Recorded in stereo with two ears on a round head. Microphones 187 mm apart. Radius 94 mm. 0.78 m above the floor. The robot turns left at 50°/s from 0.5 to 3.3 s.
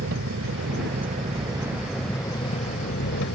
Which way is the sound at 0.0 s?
110° right.